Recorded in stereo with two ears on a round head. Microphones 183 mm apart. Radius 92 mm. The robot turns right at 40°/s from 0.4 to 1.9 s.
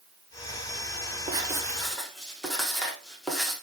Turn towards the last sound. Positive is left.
turn(degrees=5)  # may be behind; listen again after turning